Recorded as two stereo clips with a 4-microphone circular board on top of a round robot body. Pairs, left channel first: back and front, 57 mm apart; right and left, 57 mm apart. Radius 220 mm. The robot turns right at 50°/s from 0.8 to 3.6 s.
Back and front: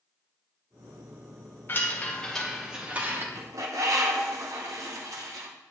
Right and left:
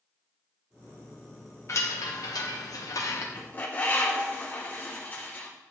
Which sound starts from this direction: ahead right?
A bird, at 3.4 s.